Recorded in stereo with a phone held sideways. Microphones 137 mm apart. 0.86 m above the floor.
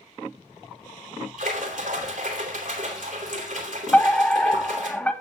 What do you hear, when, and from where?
1.4 s a splash: 75° right (ahead or behind), 3 m
3.9 s a fire alarm: 10° left (ahead or behind), 1.5 m